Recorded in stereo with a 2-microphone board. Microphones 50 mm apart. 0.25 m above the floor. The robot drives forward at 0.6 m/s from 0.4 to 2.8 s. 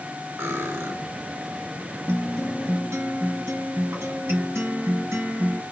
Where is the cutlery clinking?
65° right (ahead or behind), 1.6 m; by 0.9 s 60° right (ahead or behind), 1.6 m.